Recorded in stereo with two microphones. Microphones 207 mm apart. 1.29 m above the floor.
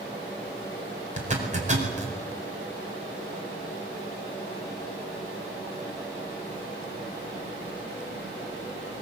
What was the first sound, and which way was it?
A zipper, 35° right (ahead or behind).